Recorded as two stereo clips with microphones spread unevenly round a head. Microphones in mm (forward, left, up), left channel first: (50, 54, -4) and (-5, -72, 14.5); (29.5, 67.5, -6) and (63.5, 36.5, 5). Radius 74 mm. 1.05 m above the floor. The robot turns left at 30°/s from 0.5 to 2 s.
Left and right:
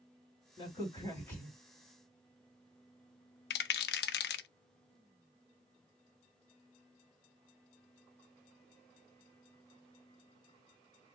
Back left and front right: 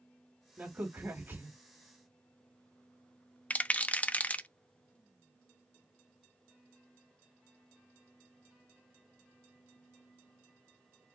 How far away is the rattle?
About 0.5 m.